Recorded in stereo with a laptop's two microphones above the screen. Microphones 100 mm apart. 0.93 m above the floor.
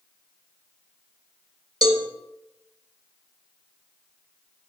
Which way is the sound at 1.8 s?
50° right (ahead or behind).